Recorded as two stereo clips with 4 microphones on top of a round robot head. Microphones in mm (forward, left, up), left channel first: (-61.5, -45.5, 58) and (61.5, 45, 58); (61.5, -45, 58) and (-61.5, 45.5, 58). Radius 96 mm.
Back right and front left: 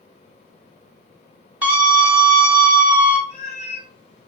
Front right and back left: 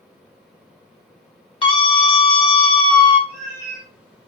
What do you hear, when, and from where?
1.6 s a scream: 35° right, 0.9 m
3.3 s a cat meowing: 165° left, 1.5 m